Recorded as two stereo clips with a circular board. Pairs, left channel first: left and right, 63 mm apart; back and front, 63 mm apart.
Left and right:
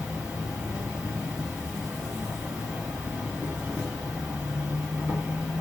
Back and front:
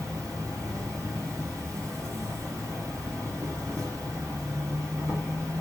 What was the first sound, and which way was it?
An insect, 20° right.